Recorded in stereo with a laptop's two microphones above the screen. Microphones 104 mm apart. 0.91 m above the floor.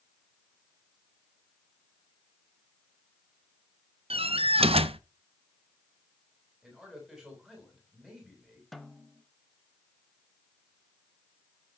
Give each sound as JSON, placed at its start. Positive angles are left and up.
{"t": 4.1, "sound": "a door slam", "side_deg": -75, "distance_m": 0.6}
{"t": 6.6, "sound": "a man speaking", "side_deg": -10, "distance_m": 5.0}
{"t": 8.7, "sound": "a snare drum", "side_deg": 0, "distance_m": 0.7}